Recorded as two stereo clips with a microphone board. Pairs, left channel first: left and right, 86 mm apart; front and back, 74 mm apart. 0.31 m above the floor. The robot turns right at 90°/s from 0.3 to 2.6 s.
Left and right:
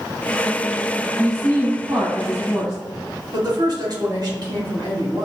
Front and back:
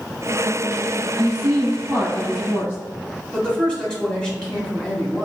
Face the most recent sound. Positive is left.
turn(degrees=-75)